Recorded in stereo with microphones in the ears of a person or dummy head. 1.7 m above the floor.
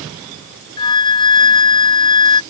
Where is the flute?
25° left (ahead or behind).